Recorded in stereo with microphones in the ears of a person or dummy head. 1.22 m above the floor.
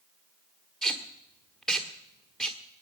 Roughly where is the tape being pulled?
Centre.